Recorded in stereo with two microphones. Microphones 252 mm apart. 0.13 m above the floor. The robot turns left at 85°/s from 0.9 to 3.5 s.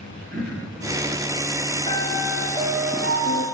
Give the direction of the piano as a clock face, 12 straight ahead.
11 o'clock.